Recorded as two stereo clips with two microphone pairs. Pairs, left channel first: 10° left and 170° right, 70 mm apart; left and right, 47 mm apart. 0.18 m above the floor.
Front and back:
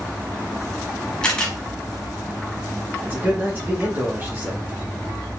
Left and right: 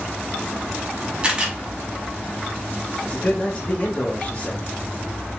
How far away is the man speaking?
About 1.7 m.